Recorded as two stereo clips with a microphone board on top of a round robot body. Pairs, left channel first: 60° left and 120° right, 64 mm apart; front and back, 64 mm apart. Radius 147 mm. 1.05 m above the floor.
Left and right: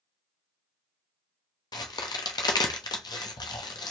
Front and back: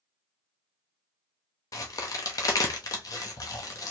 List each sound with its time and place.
1.7 s a crack: 40° left, 0.6 m